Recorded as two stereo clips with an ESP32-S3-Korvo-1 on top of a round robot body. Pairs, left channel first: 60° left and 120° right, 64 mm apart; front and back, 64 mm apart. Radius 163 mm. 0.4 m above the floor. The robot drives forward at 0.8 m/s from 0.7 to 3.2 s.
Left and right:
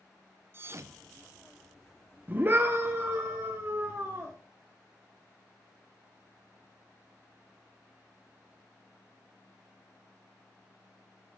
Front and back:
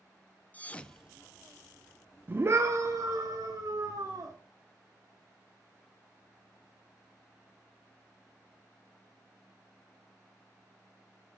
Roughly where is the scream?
Behind right.